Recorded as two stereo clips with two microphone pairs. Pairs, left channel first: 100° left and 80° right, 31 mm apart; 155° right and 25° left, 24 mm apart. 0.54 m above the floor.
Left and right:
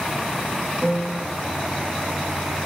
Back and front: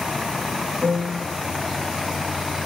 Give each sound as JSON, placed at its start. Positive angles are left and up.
{"t": 0.8, "sound": "a piano", "azimuth_deg": -5, "distance_m": 9.0}